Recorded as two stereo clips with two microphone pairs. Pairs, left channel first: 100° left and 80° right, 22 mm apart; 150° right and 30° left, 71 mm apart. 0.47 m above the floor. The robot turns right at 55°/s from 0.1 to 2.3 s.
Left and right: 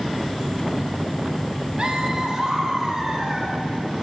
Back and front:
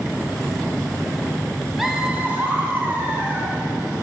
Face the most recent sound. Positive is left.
turn(degrees=-30)